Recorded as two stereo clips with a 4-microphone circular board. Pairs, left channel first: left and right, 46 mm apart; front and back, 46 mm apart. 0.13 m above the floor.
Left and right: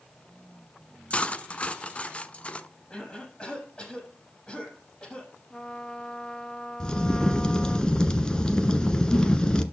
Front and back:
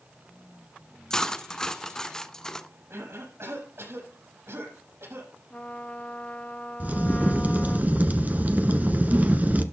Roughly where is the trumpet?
Ahead left.